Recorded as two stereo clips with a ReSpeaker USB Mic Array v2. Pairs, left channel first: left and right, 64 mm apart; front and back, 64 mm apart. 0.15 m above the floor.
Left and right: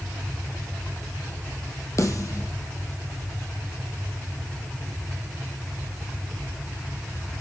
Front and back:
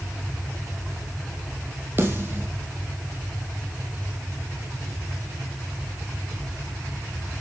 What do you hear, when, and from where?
2.0 s a snare drum: 125° left, 4 m